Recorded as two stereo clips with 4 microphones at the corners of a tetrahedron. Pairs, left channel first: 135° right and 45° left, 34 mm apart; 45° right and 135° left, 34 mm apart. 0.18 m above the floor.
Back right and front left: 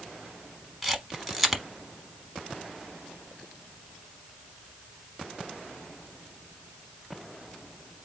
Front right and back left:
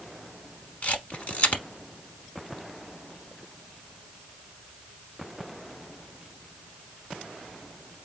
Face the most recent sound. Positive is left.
turn(degrees=-45)